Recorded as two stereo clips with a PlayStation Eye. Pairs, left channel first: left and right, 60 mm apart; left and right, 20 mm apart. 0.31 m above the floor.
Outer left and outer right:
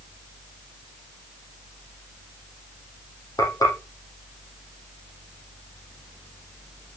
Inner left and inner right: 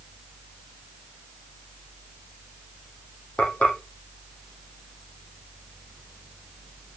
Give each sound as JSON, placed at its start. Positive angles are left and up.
{"t": 3.4, "sound": "frying", "side_deg": 80, "distance_m": 7.0}